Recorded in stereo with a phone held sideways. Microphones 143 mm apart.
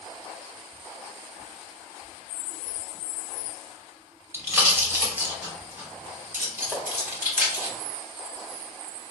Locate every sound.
4.3 s a pop: 15° right (ahead or behind), 1.5 m
6.7 s tapping: 5° right (ahead or behind), 0.7 m